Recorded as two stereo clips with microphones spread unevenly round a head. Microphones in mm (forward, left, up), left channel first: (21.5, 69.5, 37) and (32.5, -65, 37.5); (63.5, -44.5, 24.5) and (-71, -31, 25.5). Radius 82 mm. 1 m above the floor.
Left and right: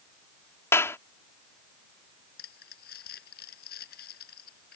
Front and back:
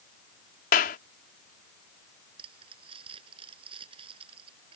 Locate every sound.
0.7 s a clap: 25° left
2.4 s crumpling: 115° left